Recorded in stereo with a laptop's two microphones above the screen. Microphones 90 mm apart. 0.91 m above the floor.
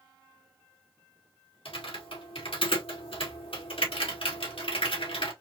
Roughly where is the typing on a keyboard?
Left.